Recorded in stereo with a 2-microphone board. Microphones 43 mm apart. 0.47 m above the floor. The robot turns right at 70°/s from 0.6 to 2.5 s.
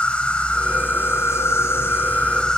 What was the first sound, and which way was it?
An insect, 25° left.